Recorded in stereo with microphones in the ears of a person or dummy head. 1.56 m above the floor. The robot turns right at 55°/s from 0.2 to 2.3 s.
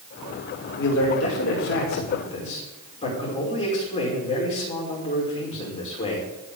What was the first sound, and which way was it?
A man speaking, 60° left.